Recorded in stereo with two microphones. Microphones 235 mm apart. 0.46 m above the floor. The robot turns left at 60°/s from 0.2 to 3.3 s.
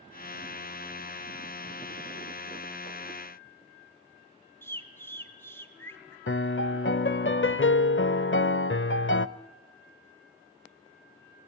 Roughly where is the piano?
Left.